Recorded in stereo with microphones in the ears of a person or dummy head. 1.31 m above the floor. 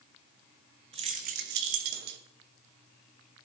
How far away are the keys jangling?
About 1.2 m.